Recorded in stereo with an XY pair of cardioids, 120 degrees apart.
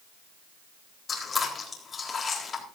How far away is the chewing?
About 4 m.